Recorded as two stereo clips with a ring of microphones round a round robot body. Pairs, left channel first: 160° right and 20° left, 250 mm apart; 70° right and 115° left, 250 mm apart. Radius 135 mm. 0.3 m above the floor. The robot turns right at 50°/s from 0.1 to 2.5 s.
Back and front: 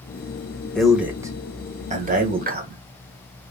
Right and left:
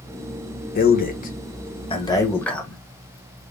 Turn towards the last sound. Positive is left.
turn(degrees=15)